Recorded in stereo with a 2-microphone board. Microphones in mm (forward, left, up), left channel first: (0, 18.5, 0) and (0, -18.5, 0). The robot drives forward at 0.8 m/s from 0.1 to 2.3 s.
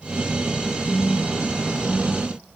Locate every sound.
0.8 s a phone buzzing: 45° left (ahead or behind), 4 m; by 2.3 s 60° left (ahead or behind), 3.5 m